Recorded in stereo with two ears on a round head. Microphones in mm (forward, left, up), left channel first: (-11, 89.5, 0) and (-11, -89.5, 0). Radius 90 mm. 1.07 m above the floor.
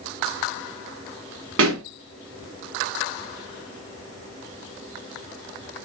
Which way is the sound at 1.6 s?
75° right (ahead or behind).